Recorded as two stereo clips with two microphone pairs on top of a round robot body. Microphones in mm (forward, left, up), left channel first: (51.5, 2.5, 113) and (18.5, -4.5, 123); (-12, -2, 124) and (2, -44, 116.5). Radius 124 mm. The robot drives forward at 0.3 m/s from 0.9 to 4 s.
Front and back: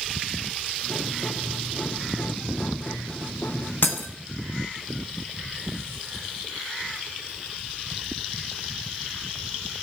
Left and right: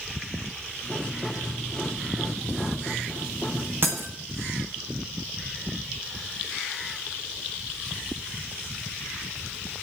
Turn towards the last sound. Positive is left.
turn(degrees=-20)